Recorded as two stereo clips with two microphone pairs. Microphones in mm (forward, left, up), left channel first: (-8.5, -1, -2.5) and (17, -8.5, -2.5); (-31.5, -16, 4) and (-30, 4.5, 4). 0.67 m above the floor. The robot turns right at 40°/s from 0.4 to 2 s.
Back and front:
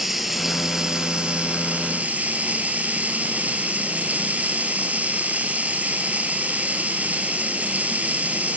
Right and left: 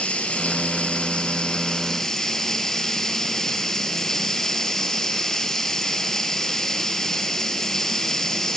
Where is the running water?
95° right, 4 m; by 8.6 s 30° right, 4 m.